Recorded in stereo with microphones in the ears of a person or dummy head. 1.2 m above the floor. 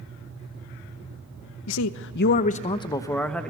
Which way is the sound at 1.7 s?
85° left.